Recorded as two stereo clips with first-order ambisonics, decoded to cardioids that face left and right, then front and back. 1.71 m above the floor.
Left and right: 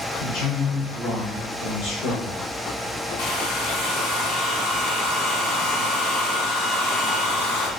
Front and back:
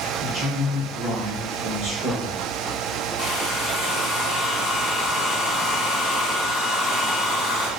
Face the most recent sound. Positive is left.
turn(degrees=70)